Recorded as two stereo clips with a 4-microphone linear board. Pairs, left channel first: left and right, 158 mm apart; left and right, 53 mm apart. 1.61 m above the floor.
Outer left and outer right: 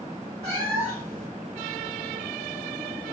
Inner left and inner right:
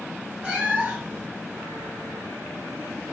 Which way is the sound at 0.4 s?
25° right (ahead or behind).